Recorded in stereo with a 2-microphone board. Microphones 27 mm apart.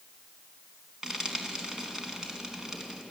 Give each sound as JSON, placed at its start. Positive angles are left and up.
{"t": 1.0, "sound": "frying", "side_deg": -15, "distance_m": 3.5}